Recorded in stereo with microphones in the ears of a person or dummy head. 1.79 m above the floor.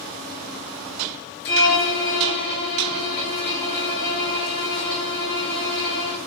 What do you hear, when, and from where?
1.4 s a violin: 40° left (ahead or behind), 1.3 m